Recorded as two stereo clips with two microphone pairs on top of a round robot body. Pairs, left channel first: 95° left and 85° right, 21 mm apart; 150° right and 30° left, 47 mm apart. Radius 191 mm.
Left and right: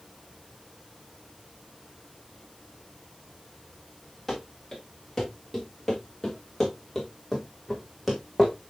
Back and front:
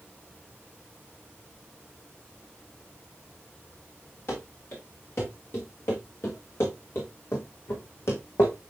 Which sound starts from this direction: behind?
Running footsteps, at 4.3 s.